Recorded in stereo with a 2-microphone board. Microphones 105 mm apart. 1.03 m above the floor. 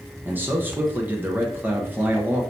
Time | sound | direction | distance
0.2 | a man speaking | 15° right (ahead or behind) | 0.7 m